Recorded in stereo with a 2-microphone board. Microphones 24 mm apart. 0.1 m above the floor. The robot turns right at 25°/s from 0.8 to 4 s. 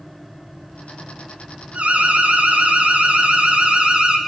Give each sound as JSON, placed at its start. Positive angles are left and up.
{"t": 1.7, "sound": "an alarm", "azimuth_deg": -105, "distance_m": 4.0}